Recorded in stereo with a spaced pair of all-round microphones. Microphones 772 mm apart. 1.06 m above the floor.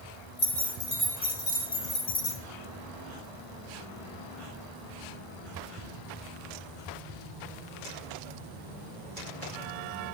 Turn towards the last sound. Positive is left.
turn(degrees=30)  # may be behind; listen again after turning